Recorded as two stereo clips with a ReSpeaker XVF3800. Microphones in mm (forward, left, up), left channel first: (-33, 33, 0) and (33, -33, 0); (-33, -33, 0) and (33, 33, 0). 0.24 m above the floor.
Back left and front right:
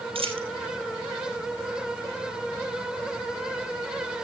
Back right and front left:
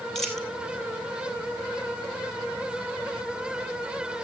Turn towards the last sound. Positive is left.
turn(degrees=-50)